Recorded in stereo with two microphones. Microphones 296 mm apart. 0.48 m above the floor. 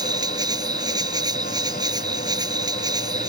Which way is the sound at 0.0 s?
15° right (ahead or behind).